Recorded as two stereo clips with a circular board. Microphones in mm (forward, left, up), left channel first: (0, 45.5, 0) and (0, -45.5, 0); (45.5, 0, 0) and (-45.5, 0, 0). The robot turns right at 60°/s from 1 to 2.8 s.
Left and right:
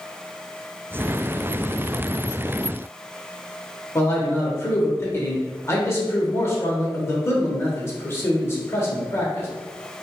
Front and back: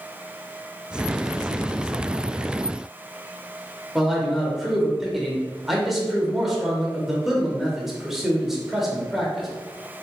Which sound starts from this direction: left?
A man speaking, at 4.0 s.